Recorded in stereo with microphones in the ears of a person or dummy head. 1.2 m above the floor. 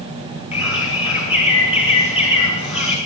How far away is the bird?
About 2.5 m.